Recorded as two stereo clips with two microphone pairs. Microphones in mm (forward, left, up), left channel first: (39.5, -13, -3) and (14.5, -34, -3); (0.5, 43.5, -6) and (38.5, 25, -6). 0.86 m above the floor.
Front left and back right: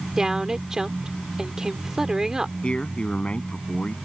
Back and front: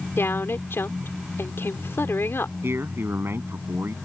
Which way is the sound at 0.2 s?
145° left.